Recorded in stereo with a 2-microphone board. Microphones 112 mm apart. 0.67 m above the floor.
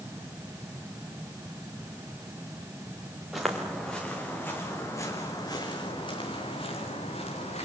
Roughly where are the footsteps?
Centre.